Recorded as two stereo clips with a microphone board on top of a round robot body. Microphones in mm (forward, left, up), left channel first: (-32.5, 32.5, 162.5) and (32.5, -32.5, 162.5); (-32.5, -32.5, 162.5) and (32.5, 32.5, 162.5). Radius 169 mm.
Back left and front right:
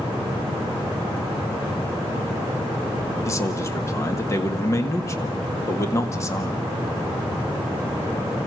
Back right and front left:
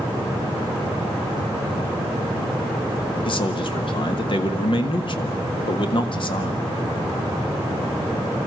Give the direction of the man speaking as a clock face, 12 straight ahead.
6 o'clock.